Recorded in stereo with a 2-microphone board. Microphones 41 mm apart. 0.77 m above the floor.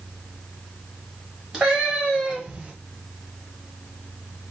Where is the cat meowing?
5° right (ahead or behind), 1.7 m; by 2.7 s 25° right (ahead or behind), 1.2 m.